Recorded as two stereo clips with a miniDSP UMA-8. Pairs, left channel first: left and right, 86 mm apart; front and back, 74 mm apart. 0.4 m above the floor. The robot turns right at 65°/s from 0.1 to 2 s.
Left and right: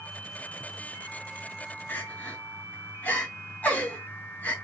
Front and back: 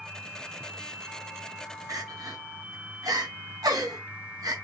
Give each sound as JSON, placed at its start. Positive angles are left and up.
{"t": 1.9, "sound": "crying", "azimuth_deg": 155, "distance_m": 2.5}